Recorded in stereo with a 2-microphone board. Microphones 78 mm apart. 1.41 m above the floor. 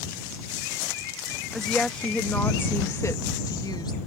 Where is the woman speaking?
5° left (ahead or behind); by 4.0 s 65° left (ahead or behind).